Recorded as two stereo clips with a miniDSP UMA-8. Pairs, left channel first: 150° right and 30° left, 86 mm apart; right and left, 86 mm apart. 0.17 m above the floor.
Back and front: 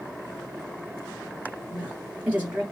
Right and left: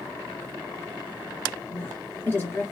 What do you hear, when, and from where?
1.7 s a woman speaking: 45° right, 1.7 m